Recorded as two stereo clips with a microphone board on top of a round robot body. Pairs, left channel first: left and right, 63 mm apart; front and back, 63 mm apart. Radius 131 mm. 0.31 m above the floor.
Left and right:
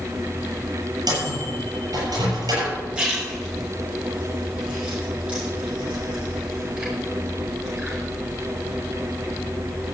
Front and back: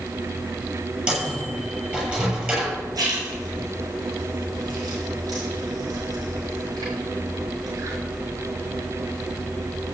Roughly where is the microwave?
Right.